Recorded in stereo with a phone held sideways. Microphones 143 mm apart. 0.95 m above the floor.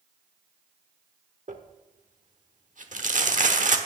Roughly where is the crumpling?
Right.